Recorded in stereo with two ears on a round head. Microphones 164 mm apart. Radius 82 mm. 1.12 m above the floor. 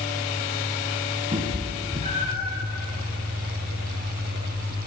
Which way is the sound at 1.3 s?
25° right (ahead or behind).